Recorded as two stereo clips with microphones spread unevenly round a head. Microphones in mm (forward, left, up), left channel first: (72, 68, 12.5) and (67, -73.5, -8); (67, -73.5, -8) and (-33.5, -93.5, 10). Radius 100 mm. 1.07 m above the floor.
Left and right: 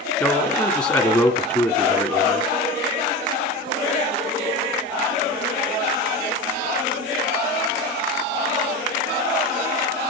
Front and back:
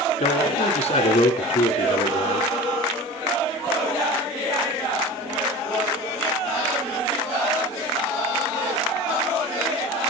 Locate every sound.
0.2 s a man speaking: 20° left, 2.5 m